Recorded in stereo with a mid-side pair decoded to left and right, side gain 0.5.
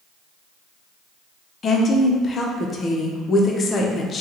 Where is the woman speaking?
40° left, 0.7 m.